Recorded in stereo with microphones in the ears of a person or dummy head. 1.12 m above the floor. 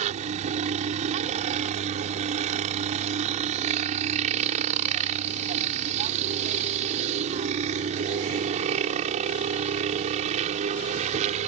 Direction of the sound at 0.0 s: 35° right (ahead or behind).